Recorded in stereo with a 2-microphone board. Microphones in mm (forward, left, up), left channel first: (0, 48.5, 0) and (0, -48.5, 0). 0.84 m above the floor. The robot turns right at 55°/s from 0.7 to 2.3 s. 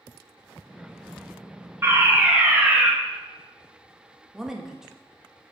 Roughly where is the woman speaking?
Centre.